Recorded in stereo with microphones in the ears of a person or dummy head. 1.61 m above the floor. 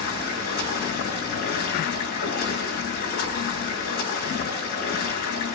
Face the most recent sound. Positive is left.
turn(degrees=55)  # may be behind; listen again after turning